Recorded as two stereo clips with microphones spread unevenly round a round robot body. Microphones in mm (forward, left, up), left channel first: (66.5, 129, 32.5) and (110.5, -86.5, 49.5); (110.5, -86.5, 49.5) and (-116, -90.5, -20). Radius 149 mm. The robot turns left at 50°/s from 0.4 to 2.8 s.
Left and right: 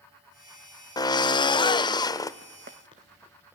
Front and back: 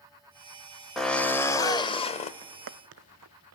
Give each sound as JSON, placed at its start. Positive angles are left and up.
{"t": 1.0, "sound": "a drill", "azimuth_deg": 130, "distance_m": 0.7}
{"t": 2.4, "sound": "footsteps", "azimuth_deg": -115, "distance_m": 0.7}